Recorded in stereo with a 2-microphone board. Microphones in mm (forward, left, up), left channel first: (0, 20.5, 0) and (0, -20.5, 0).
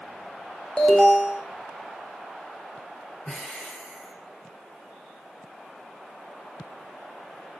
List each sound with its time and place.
0.8 s an alarm: 20° left (ahead or behind), 4.5 m
3.2 s breathing: 15° left (ahead or behind), 5 m